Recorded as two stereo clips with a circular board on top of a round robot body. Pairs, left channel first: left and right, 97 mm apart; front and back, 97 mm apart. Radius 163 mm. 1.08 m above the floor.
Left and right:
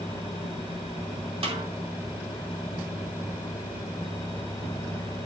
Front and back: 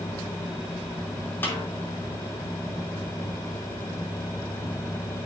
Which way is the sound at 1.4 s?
70° right.